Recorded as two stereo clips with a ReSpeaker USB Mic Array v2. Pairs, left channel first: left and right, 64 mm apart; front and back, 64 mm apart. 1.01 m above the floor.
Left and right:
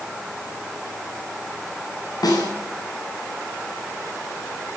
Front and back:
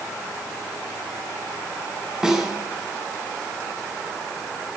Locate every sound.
2.2 s a snare drum: 100° left, 9.5 m